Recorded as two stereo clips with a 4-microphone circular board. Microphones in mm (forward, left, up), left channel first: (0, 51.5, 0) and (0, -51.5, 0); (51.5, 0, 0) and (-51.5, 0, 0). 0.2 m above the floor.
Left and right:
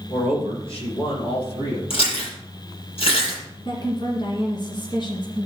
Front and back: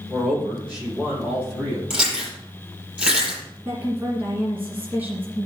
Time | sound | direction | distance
0.1 | a man speaking | 100° left | 6 m
1.9 | chewing | 100° left | 6 m
3.6 | a woman speaking | 115° left | 2 m